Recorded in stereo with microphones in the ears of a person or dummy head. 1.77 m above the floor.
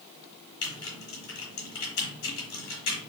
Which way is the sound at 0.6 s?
70° left (ahead or behind).